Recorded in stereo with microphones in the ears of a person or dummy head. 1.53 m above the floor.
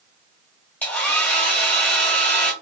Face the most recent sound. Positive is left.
turn(degrees=5)  # may be behind; listen again after turning